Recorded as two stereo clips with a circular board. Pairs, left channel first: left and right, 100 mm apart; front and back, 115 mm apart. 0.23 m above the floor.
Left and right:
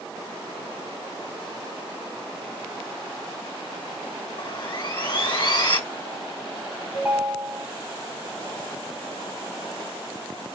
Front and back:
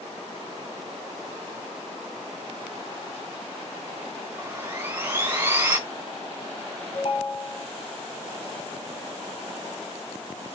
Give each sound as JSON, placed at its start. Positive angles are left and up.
{"t": 4.4, "sound": "sawing", "azimuth_deg": 115, "distance_m": 2.5}
{"t": 6.9, "sound": "a ringtone", "azimuth_deg": -15, "distance_m": 1.4}